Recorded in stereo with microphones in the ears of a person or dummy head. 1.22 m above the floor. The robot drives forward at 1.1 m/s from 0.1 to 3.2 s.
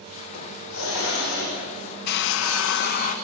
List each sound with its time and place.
0.3 s a hiss: 80° left, 4.5 m; by 1.6 s 85° left, 4.5 m
2.1 s a hair dryer: 55° left (ahead or behind), 0.8 m; by 3.1 s 40° left (ahead or behind), 1.0 m